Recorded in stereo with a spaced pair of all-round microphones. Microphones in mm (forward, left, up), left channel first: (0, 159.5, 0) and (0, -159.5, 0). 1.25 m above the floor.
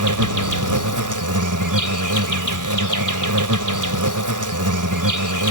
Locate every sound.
0.0 s an insect: 70° right (ahead or behind)